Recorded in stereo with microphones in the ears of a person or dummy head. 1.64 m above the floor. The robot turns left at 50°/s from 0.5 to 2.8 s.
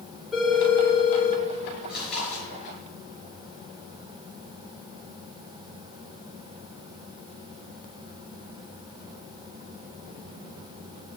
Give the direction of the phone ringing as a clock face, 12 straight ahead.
6 o'clock.